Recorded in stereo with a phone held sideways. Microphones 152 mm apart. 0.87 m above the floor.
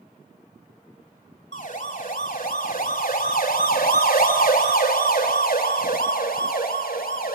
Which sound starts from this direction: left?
A siren, at 1.5 s.